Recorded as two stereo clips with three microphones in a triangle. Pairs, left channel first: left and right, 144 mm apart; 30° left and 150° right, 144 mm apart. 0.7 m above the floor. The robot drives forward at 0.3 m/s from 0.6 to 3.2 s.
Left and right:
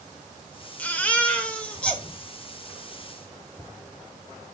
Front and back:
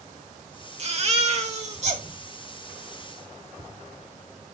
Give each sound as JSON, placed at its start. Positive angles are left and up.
{"t": 0.8, "sound": "a baby crying", "azimuth_deg": 170, "distance_m": 1.1}